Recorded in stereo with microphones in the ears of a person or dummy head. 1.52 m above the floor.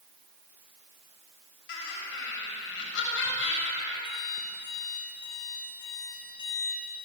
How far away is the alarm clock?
About 2.5 m.